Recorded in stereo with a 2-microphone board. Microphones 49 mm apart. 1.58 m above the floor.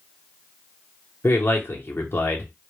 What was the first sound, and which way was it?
A man speaking, 50° left (ahead or behind).